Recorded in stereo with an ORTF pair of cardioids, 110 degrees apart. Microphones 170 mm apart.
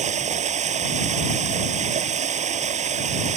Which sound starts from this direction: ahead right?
Running water, at 0.0 s.